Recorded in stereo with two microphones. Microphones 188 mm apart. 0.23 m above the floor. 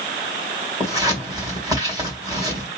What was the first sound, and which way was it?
Scissors, 20° right (ahead or behind).